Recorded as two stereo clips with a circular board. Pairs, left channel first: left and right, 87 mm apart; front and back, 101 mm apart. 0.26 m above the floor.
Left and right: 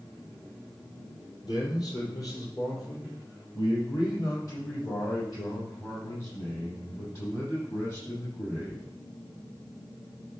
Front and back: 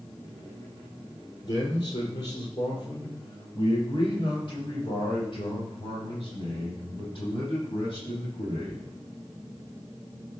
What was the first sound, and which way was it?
A man speaking, 50° left.